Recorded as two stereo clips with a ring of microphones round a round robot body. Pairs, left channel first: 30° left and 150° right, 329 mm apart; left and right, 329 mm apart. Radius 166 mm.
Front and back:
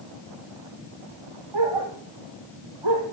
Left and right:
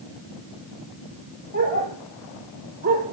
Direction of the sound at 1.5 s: 155° right.